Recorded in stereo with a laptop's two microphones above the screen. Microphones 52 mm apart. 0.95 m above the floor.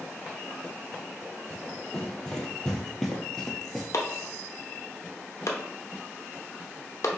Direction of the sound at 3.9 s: 65° left (ahead or behind).